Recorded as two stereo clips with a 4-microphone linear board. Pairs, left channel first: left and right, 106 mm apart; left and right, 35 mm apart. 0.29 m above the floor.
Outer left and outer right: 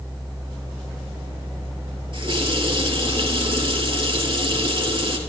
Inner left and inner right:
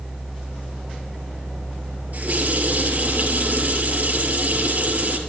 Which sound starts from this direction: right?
A running tap, at 2.1 s.